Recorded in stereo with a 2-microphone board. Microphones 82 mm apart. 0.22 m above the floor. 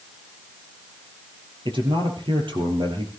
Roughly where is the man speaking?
Right.